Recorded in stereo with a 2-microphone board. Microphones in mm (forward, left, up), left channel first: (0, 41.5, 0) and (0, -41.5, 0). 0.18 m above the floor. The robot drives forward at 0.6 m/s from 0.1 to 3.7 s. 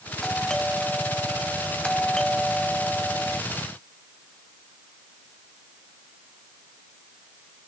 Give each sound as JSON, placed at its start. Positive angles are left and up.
{"t": 0.2, "sound": "a doorbell", "side_deg": 10}